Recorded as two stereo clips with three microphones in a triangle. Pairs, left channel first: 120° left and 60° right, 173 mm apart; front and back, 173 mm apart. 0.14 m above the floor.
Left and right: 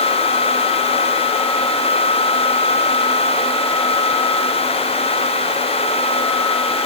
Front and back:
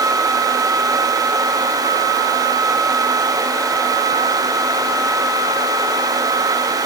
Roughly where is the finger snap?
No finger snap in this recording.